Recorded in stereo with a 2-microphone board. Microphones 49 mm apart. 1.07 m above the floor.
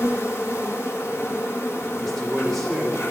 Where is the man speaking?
5° left (ahead or behind), 3 m.